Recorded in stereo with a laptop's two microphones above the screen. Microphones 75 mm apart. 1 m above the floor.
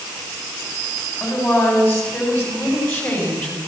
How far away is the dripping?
No dripping in this recording.